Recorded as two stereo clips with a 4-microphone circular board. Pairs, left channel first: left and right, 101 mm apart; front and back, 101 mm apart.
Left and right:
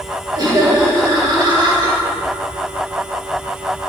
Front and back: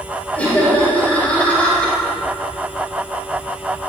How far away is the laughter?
About 2 m.